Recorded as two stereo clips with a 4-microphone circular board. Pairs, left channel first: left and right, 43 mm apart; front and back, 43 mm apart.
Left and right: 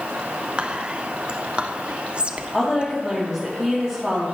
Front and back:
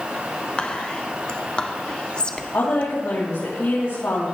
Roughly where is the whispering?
Ahead right.